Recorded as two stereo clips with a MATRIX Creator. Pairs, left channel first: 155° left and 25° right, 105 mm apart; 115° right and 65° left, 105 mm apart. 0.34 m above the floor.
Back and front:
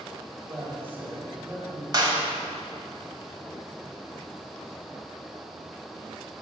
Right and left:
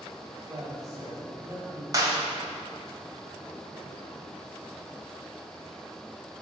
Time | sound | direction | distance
0.5 | a man speaking | 35° left | 1.6 m
1.9 | a clap | 20° left | 1.4 m